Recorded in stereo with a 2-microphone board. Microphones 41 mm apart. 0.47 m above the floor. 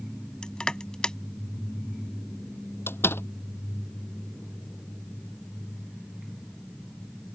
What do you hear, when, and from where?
0.4 s crushing: 20° left (ahead or behind)
2.9 s a door slam: 85° left